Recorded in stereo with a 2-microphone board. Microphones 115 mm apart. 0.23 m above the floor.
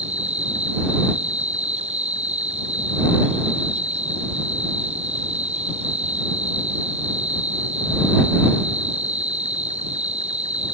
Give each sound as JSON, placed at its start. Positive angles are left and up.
{"t": 0.0, "sound": "an insect", "side_deg": -65}